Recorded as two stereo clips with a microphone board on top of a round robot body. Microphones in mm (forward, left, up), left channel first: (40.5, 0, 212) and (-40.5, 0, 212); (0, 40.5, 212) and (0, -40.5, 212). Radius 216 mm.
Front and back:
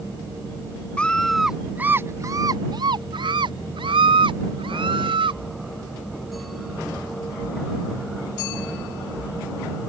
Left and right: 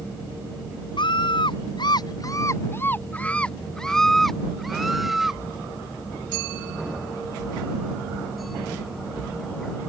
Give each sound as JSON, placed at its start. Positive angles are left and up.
{"t": 1.0, "sound": "a scream", "azimuth_deg": 75}